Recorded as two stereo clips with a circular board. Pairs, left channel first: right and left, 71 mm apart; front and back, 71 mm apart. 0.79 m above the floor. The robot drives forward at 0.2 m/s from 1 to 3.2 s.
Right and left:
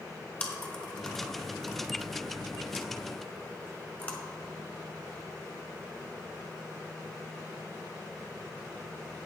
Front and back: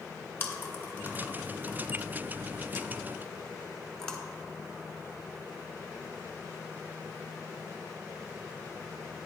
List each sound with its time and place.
0.4 s chewing: 35° right, 1.2 m; by 4.2 s 70° right, 1.1 m